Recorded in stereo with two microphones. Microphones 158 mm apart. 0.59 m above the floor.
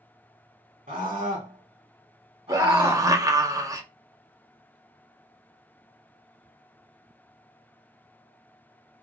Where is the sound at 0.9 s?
50° right (ahead or behind), 1.5 m; by 3.1 s 20° right (ahead or behind), 1.8 m.